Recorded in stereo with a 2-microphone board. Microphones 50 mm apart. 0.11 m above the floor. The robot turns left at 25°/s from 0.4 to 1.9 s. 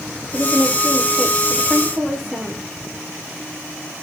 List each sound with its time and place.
0.3 s a woman speaking: 40° left, 7 m; by 2.6 s straight ahead, 7 m